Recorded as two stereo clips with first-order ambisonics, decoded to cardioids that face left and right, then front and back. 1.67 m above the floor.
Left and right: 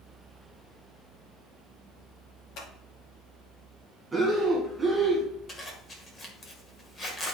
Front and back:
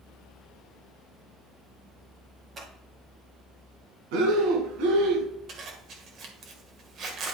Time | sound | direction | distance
2.6 | scissors | 115° left | 2.5 m
4.1 | breathing | 170° right | 2.5 m
5.5 | a zipper | 150° left | 1.7 m